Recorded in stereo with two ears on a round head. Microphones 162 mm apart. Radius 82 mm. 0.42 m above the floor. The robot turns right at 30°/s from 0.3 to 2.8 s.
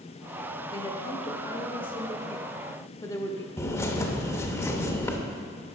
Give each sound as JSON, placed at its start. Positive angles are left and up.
{"t": 0.7, "sound": "a woman speaking", "azimuth_deg": 80, "distance_m": 0.8}
{"t": 3.6, "sound": "a bird", "side_deg": 15, "distance_m": 0.8}